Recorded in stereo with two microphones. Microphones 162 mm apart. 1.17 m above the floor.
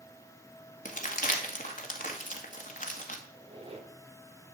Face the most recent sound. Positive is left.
turn(degrees=-35)  # may be behind; listen again after turning